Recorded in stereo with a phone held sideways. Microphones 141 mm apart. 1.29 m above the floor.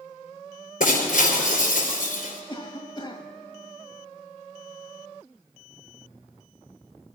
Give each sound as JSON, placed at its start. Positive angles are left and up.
{"t": 0.8, "sound": "breaking glass", "side_deg": 75, "distance_m": 5.0}
{"t": 2.5, "sound": "a cough", "side_deg": 35, "distance_m": 1.6}